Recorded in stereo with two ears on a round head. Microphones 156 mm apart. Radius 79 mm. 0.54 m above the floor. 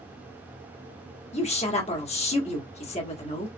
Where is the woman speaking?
40° left (ahead or behind), 1.2 m.